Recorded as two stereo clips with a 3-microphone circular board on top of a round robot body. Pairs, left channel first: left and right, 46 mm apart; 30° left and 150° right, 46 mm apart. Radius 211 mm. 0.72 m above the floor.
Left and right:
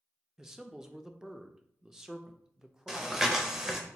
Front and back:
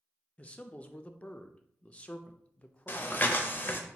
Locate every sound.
0.4 s a man speaking: 15° right, 0.5 m
2.9 s breathing: 10° right, 0.6 m